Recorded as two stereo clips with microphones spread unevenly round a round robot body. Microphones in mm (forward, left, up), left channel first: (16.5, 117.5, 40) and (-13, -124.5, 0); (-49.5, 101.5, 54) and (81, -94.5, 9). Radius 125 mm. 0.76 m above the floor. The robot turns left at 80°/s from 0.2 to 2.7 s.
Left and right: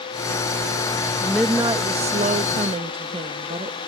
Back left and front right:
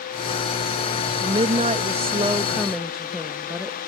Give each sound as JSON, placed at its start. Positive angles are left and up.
{"t": 1.2, "sound": "a woman speaking", "azimuth_deg": -10}